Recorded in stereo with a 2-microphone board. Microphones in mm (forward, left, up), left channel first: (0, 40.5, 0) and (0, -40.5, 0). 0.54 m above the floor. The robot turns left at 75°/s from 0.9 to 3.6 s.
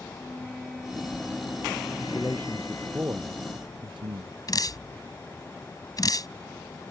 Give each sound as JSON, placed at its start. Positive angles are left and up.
{"t": 0.1, "sound": "a flute", "azimuth_deg": 180}
{"t": 2.0, "sound": "a man speaking", "azimuth_deg": 50}
{"t": 4.5, "sound": "dripping", "side_deg": 45}